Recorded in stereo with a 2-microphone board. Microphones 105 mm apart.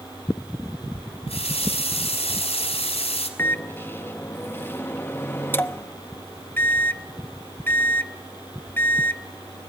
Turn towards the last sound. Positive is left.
turn(degrees=20)  # may be behind; listen again after turning